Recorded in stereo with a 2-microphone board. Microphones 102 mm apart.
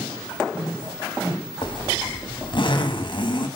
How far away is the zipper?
About 1.5 m.